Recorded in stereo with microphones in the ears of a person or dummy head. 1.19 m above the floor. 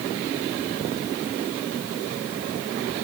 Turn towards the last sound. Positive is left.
No sound to turn to.